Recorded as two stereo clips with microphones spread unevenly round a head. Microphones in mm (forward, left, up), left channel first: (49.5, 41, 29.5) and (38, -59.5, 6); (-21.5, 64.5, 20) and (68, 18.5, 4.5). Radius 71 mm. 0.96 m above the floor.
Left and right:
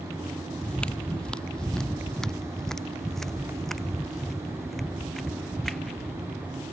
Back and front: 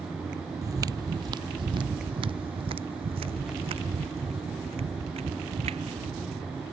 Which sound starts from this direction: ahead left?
Footsteps, at 0.6 s.